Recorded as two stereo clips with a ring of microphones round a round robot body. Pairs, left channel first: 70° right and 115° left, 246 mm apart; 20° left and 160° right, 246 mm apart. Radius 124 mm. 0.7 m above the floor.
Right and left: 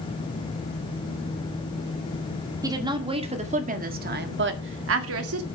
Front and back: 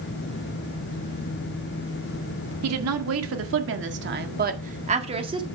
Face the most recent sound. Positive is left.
turn(degrees=130)